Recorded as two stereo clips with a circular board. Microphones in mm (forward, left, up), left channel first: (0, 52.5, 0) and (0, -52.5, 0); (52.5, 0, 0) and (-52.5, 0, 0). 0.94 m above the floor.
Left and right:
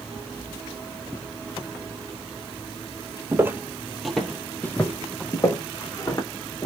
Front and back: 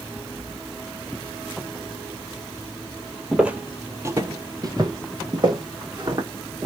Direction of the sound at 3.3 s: 105° right.